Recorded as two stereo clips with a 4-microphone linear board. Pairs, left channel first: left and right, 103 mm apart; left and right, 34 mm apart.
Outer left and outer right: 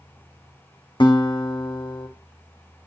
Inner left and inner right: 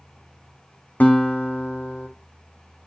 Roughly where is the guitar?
Left.